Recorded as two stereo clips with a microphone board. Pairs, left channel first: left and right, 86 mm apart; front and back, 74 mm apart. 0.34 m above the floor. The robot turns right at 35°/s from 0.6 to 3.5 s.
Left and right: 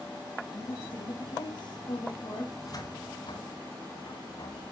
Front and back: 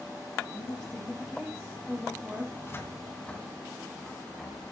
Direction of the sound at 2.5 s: 45° left.